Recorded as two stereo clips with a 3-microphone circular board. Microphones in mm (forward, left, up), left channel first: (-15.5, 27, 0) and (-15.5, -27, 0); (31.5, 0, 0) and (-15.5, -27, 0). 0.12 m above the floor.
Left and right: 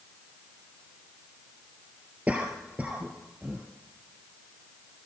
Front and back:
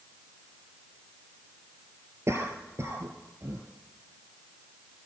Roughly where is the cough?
Behind right.